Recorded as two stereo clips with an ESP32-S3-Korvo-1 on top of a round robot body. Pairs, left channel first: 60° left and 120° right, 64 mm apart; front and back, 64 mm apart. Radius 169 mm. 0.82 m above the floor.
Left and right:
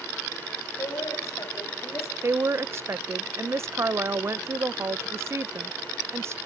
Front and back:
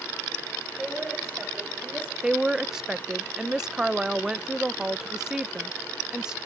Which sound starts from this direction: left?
A woman speaking, at 0.8 s.